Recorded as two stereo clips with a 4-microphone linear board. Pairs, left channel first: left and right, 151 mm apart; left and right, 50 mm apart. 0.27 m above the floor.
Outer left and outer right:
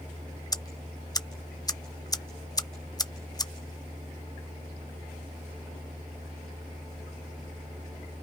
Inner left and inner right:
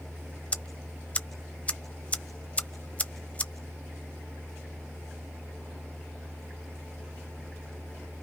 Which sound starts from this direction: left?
Ticking, at 0.5 s.